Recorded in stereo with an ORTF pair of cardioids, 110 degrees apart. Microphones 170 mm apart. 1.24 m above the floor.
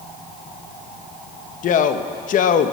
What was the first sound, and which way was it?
A man speaking, 50° left.